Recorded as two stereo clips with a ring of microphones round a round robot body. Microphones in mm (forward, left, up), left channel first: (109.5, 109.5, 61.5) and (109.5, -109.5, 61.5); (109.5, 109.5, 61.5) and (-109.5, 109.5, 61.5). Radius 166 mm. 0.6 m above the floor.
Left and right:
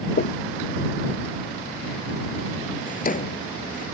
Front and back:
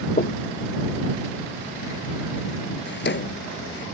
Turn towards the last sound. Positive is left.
turn(degrees=40)